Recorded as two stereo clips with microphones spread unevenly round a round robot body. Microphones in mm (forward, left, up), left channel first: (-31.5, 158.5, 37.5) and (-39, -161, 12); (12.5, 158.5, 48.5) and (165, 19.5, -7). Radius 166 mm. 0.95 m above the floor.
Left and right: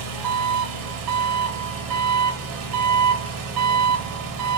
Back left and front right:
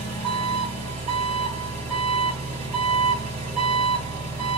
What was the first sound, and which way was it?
An engine running, 115° right.